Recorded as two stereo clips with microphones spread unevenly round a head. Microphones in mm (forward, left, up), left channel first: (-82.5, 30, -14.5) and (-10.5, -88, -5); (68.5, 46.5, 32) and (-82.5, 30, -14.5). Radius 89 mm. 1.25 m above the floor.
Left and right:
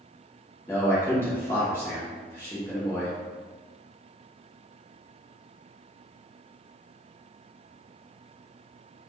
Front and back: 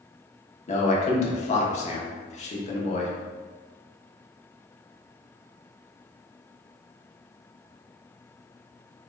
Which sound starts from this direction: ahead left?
A man speaking, at 0.7 s.